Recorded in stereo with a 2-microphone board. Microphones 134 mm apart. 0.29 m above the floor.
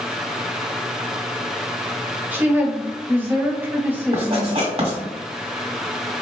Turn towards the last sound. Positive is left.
turn(degrees=-45)  # may be behind; listen again after turning